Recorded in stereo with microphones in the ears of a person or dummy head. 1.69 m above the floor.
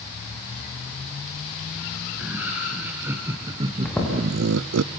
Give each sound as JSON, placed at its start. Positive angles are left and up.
{"t": 2.2, "sound": "laughter", "side_deg": -10, "distance_m": 2.0}
{"t": 3.9, "sound": "footsteps", "side_deg": 5, "distance_m": 7.0}